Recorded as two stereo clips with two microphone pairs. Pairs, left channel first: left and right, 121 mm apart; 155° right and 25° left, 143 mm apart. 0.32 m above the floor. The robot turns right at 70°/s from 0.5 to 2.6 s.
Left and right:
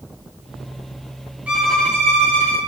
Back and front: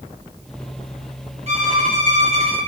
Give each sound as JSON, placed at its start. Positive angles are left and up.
{"t": 1.5, "sound": "a violin", "azimuth_deg": -10, "distance_m": 1.8}